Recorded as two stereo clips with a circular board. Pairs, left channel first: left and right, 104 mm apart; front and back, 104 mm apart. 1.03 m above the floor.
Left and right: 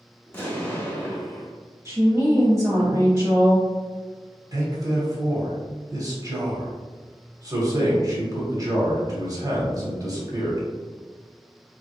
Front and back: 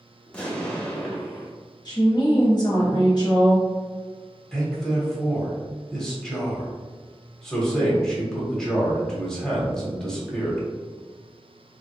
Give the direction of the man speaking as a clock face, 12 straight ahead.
3 o'clock.